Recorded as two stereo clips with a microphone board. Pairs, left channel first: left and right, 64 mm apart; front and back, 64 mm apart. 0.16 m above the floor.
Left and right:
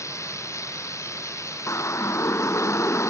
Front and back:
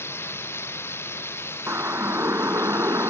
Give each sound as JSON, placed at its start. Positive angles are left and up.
{"t": 0.0, "sound": "running water", "azimuth_deg": 50}
{"t": 1.7, "sound": "a siren", "azimuth_deg": 130}